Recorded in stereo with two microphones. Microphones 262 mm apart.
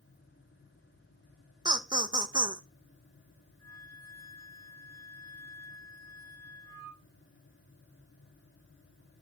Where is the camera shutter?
No camera shutter in this recording.